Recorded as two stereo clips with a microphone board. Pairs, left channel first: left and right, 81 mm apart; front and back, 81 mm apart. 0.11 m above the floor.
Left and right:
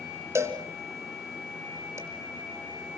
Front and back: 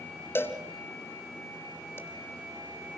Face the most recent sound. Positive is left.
turn(degrees=-50)